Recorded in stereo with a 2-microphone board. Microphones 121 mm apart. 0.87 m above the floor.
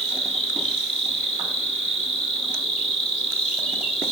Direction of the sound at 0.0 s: 65° left (ahead or behind).